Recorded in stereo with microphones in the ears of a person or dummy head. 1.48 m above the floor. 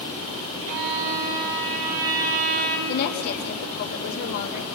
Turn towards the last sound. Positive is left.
turn(degrees=55)  # may be behind; listen again after turning